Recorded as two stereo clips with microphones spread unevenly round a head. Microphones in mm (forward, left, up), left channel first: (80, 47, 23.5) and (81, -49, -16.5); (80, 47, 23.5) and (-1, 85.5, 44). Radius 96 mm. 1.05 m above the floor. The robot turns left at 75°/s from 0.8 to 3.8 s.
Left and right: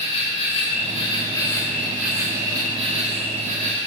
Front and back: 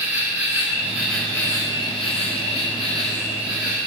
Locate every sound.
0.0 s an insect: 95° left, 7 m; by 3.9 s 130° right, 7 m